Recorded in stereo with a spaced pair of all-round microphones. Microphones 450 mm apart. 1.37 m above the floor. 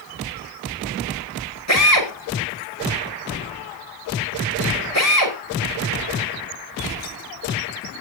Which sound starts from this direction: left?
A drill, at 1.7 s.